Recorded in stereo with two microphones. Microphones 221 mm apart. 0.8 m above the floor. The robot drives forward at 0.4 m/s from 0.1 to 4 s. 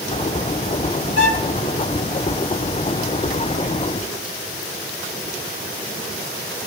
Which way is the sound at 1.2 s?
60° left (ahead or behind).